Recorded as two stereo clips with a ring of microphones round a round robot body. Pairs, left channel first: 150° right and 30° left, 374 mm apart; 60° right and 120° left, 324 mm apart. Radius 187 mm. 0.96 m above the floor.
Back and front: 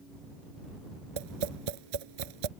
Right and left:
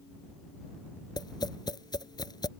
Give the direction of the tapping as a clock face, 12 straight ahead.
11 o'clock.